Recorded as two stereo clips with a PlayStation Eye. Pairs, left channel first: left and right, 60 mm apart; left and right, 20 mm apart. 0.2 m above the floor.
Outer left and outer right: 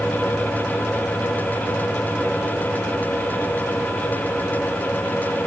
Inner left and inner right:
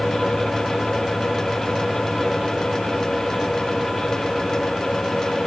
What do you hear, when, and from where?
Only background noise.